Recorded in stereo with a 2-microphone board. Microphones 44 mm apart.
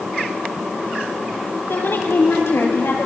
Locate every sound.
1.7 s a woman speaking: 65° left (ahead or behind), 8.5 m; by 3.1 s 70° left (ahead or behind), 8 m